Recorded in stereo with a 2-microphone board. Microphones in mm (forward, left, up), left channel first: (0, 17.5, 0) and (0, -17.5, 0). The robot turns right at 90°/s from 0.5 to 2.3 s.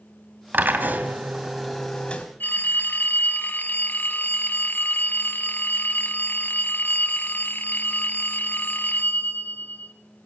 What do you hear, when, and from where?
0.5 s a drill: 105° right, 2.5 m; by 2.2 s 50° left, 2.5 m
2.4 s a phone ringing: 80° left, 1.7 m